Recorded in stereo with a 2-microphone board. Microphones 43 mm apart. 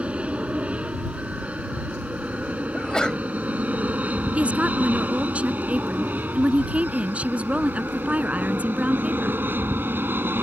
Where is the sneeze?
20° left (ahead or behind).